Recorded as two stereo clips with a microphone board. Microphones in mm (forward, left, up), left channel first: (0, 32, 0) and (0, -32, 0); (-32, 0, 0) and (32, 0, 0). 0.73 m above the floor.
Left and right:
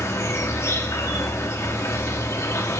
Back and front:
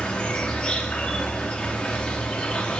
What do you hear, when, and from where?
0.0 s an insect: 110° left, 1.5 m